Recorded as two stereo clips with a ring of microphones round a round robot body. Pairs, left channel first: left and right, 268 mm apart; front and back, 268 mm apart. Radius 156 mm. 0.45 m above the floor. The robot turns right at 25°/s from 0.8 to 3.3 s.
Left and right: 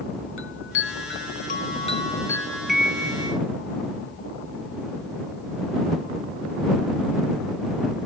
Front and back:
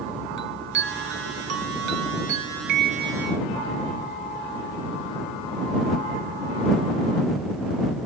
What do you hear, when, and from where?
0.4 s a chime: 130° left; by 3.4 s 165° right